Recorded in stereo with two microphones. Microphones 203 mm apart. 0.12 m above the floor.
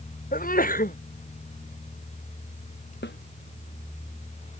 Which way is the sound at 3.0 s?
60° left (ahead or behind).